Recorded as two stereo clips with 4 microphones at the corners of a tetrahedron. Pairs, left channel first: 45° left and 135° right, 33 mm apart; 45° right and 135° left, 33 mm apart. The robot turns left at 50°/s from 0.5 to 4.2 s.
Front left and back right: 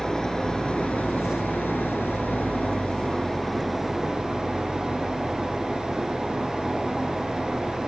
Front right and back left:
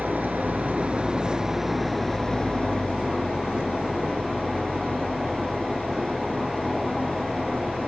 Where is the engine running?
110° left; by 7.9 s 75° right.